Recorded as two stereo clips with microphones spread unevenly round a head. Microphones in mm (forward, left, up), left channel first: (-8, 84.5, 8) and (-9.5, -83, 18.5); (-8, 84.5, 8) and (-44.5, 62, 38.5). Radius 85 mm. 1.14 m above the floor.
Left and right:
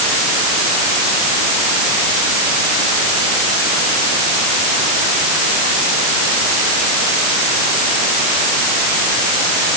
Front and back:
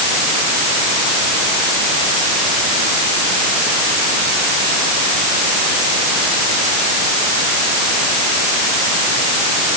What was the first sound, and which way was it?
Only background noise.